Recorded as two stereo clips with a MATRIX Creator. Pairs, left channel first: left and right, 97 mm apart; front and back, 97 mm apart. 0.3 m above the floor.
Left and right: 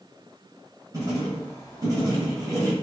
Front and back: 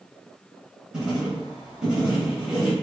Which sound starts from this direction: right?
Writing, at 0.9 s.